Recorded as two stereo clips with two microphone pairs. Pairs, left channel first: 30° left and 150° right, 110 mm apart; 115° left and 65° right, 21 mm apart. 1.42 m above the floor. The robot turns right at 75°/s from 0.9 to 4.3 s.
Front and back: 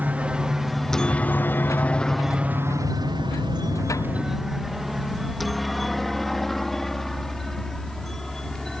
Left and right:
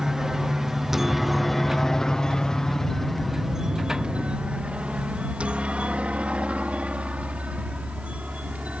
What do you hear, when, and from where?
0.0 s a helicopter: 95° right; by 8.8 s 60° right